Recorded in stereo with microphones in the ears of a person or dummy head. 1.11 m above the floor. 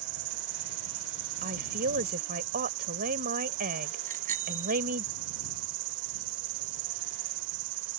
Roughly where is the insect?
Right.